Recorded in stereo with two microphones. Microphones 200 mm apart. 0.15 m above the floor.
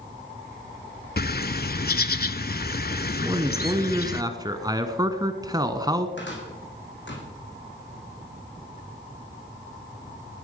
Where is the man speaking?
20° right (ahead or behind), 1.2 m.